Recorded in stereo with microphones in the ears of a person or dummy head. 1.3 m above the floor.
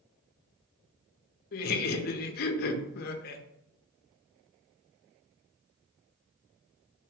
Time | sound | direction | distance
1.5 | laughter | 50° left (ahead or behind) | 0.6 m